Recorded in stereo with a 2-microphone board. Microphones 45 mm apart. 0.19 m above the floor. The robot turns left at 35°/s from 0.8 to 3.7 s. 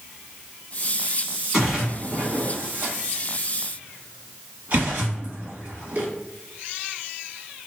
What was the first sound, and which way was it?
A splash, 10° right (ahead or behind).